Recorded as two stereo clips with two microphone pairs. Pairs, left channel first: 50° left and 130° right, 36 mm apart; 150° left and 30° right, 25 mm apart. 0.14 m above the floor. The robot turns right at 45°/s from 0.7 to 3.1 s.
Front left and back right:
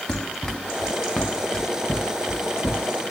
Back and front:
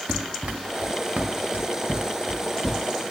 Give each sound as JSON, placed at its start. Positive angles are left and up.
{"t": 0.1, "sound": "running footsteps", "azimuth_deg": -20, "distance_m": 0.8}